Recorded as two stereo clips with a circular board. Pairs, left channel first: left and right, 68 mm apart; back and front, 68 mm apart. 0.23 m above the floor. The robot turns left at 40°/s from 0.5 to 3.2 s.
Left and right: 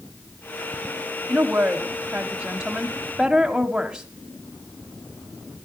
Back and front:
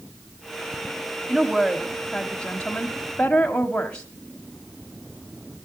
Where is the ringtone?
I don't hear a ringtone.